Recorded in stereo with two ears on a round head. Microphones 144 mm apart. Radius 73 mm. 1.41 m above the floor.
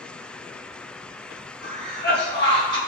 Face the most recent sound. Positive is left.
turn(degrees=25)  # may be behind; listen again after turning